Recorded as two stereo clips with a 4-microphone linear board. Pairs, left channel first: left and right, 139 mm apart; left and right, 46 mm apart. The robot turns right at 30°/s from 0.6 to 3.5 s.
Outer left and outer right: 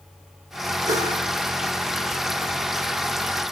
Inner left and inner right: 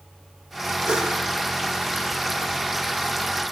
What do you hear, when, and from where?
0.9 s a whoosh: 25° right (ahead or behind), 6.5 m; by 1.2 s 15° right (ahead or behind), 6.5 m